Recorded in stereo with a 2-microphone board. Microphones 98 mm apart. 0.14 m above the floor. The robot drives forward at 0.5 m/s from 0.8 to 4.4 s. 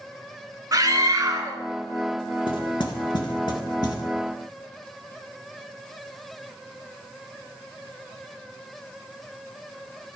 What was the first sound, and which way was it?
A scream, 35° right (ahead or behind).